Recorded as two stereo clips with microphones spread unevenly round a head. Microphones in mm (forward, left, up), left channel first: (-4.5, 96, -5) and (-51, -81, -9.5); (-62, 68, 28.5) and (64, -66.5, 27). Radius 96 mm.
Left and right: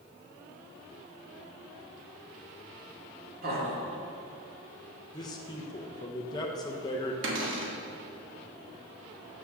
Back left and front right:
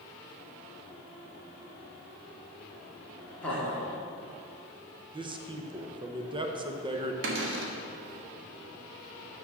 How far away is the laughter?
About 2 m.